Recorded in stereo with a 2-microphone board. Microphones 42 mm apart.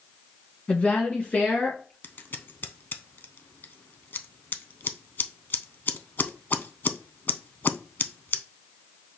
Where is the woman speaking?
35° left (ahead or behind), 1.4 m; by 1.9 s 40° left (ahead or behind), 2.5 m.